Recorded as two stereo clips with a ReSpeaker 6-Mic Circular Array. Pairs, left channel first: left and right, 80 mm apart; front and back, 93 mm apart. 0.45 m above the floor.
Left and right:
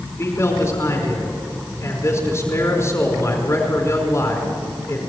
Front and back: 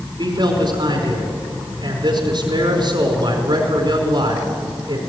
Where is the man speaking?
145° left, 4.5 m.